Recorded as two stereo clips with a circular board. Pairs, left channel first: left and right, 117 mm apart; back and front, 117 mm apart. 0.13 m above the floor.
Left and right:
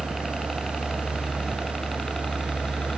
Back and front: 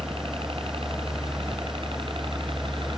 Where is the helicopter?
5° left; by 3.0 s 10° left.